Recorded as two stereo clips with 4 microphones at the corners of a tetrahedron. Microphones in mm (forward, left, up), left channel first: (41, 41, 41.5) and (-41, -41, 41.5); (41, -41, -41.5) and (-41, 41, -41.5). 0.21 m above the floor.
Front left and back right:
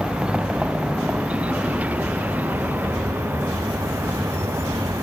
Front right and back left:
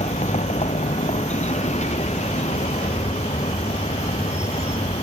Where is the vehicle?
55° right; by 5.0 s 70° right.